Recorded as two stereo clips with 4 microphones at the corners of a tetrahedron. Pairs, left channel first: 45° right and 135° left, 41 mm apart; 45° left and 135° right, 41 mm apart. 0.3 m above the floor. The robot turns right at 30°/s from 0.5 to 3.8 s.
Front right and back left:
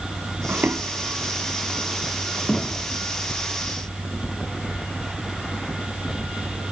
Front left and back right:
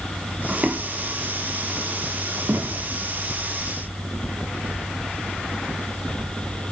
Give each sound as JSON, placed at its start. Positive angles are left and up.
{"t": 0.5, "sound": "footsteps", "azimuth_deg": 165, "distance_m": 1.0}